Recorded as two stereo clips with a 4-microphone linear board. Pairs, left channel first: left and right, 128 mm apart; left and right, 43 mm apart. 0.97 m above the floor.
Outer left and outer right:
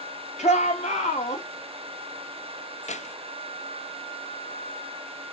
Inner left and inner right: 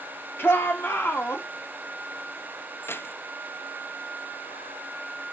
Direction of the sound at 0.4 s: 60° left (ahead or behind).